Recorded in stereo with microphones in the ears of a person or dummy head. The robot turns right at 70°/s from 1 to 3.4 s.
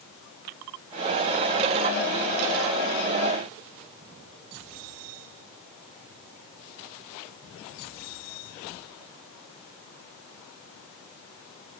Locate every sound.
Only background noise.